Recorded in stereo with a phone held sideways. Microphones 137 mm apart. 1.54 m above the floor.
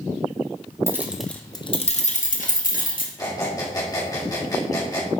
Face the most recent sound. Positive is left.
turn(degrees=30)  # may be behind; listen again after turning